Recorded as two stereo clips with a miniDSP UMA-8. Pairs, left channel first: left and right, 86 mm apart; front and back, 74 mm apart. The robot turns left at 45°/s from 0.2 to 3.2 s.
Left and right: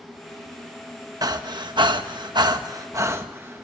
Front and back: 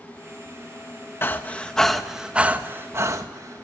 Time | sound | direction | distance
1.2 | breathing | 55° right | 1.4 m